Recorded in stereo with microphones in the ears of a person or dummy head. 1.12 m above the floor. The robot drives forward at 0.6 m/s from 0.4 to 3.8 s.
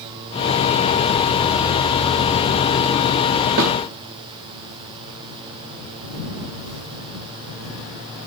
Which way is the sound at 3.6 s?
55° right (ahead or behind).